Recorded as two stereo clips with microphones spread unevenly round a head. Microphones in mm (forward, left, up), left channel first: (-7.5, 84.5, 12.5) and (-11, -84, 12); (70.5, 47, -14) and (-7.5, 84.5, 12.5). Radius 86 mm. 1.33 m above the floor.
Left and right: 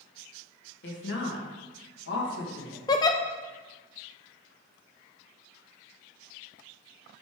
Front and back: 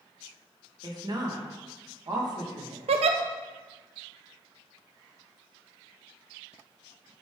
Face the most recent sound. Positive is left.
turn(degrees=155)